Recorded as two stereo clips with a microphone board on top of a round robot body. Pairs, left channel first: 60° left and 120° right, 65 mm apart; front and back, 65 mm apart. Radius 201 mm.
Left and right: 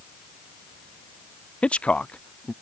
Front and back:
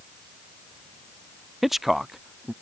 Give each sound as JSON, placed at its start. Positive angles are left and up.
{"t": 1.6, "sound": "a man speaking", "azimuth_deg": 100}